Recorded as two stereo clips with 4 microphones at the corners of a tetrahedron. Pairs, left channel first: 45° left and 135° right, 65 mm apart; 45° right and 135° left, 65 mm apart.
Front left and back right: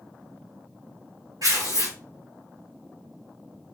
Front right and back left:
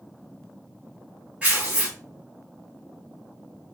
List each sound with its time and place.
1.4 s tearing paper: 155° right, 2.5 m